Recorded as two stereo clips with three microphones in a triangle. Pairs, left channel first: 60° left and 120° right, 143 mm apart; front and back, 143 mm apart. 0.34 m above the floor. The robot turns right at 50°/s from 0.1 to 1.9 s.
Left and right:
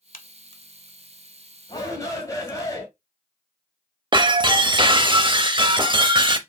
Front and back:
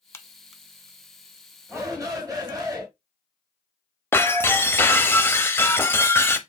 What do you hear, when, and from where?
0.1 s a crack: 70° left, 0.7 m; by 2.7 s 160° left, 0.7 m
1.7 s a shout: 110° left, 2 m; by 2.9 s 120° left, 2 m
4.1 s breaking glass: 70° right, 0.6 m